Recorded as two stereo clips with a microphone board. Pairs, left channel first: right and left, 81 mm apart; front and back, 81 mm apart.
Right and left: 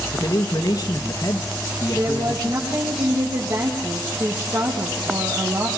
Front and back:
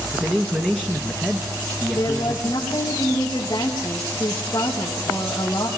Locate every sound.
0.1 s a man speaking: 100° right, 1.8 m
1.9 s a woman speaking: 50° left, 5 m